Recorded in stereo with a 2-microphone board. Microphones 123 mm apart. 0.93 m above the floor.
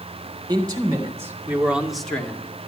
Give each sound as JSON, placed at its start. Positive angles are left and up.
{"t": 0.5, "sound": "a man speaking", "side_deg": -30, "distance_m": 3.5}